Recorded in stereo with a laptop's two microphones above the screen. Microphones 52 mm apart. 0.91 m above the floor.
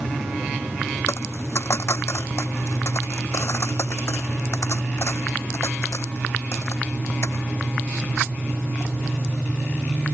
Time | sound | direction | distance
1.1 | a dropped coin | 60° left (ahead or behind) | ?